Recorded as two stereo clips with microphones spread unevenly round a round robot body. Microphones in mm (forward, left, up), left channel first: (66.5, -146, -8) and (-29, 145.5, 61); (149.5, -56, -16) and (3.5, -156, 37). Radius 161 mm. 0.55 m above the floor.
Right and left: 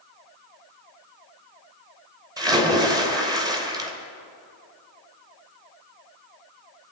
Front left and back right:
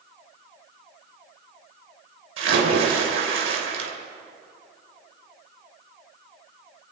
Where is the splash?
170° right, 2.5 m.